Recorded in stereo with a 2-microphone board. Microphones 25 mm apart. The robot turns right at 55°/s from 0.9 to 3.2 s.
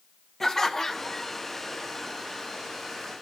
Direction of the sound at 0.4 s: 15° left (ahead or behind).